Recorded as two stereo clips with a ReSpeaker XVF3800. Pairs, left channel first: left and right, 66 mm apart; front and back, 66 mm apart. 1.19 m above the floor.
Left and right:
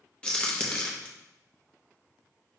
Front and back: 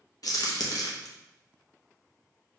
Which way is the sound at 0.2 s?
15° left.